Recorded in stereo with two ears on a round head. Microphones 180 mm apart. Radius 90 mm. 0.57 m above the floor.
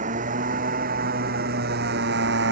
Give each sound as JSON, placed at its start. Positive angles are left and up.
{"t": 0.0, "sound": "a motorcycle", "side_deg": -40}